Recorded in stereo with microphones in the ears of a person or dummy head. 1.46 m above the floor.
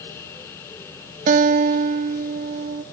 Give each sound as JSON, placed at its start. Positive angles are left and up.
{"t": 1.3, "sound": "a guitar", "side_deg": -45, "distance_m": 0.7}